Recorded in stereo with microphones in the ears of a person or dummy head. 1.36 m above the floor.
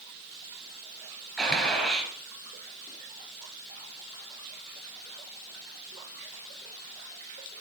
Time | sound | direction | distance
1.4 | a gunshot | centre (ahead or behind) | 4.5 m